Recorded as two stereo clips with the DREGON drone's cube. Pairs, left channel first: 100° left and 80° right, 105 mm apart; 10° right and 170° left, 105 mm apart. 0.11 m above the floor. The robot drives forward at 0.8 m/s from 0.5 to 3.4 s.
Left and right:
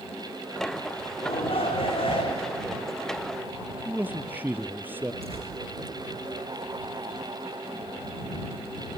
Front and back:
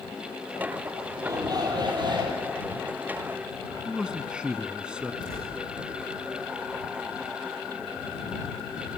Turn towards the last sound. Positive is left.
turn(degrees=-60)